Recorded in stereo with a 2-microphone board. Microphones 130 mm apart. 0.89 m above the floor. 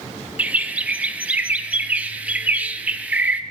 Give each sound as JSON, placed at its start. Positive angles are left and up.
{"t": 0.4, "sound": "a bird", "side_deg": -10, "distance_m": 0.6}